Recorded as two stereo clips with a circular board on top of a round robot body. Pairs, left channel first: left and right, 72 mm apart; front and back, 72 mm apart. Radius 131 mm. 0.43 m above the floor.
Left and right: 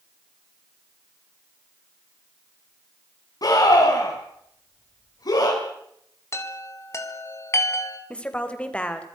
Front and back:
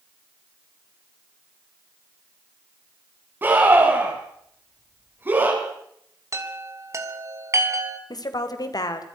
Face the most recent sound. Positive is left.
turn(degrees=20)